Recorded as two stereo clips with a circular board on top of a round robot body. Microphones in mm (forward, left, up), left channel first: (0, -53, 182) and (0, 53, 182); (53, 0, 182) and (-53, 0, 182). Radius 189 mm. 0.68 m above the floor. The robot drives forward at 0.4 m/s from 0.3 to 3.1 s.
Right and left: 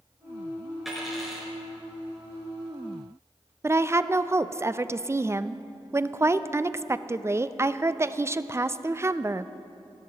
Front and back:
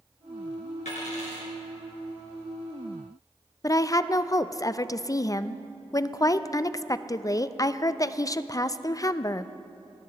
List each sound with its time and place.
0.8 s a dropped coin: straight ahead, 3 m; by 1.5 s 5° left, 2.5 m
3.6 s a woman speaking: 40° left, 0.6 m